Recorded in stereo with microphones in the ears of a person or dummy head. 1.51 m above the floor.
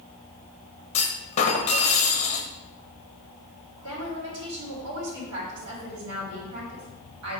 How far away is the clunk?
About 1.0 m.